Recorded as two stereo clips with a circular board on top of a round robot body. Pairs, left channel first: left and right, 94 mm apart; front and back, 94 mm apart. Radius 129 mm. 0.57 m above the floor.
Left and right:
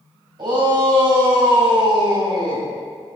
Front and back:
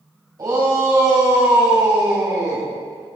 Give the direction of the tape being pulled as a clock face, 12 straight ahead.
I don't hear tape being pulled.